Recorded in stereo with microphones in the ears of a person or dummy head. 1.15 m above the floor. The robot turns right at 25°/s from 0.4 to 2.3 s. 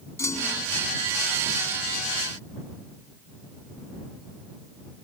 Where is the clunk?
15° left (ahead or behind); by 0.7 s 10° left (ahead or behind).